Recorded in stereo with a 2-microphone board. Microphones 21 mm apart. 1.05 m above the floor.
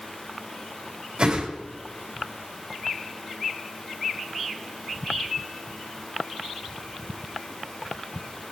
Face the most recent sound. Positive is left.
turn(degrees=-45)  # may be behind; listen again after turning